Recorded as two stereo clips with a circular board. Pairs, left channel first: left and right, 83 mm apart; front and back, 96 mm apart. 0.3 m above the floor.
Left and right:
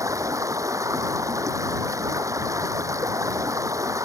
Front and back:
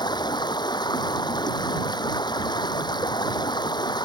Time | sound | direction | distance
0.0 | running water | 40° right | ?